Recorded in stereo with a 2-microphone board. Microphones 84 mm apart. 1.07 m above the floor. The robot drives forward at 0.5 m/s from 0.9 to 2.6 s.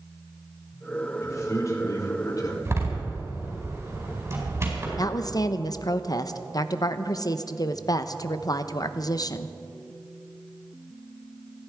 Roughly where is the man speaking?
Left.